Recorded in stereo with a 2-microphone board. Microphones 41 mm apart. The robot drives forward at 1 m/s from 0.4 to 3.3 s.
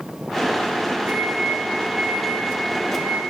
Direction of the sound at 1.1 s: 60° right (ahead or behind).